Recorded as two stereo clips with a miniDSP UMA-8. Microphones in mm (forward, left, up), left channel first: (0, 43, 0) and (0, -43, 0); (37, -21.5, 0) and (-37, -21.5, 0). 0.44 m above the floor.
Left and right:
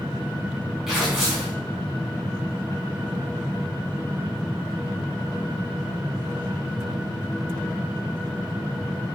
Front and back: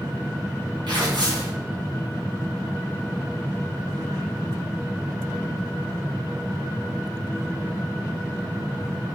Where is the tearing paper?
175° right, 4 m.